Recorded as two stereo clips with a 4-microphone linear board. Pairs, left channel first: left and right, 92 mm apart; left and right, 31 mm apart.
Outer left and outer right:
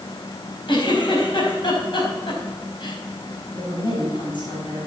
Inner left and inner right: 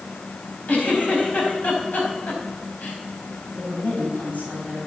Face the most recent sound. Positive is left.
turn(degrees=65)  # may be behind; listen again after turning